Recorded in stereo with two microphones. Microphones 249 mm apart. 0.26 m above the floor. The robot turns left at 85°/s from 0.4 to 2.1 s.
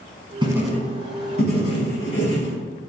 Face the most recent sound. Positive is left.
turn(degrees=60)